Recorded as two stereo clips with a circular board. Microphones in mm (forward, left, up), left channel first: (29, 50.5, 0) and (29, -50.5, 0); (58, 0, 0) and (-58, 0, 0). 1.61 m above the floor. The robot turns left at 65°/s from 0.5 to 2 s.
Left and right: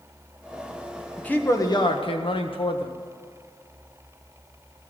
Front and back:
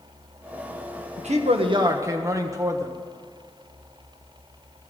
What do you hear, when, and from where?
1.2 s a man speaking: 170° left, 1.6 m; by 2.9 s 115° left, 1.6 m